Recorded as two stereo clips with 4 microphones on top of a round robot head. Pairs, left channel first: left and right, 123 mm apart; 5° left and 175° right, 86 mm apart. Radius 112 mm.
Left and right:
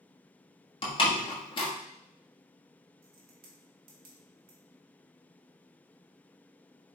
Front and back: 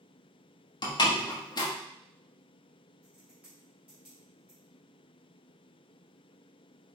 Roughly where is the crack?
Right.